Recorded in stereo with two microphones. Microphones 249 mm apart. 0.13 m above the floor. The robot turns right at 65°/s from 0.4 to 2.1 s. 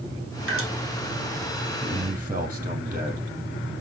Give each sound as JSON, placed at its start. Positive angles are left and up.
{"t": 0.5, "sound": "dripping", "side_deg": -55, "distance_m": 1.5}
{"t": 1.8, "sound": "a man speaking", "side_deg": -15, "distance_m": 3.5}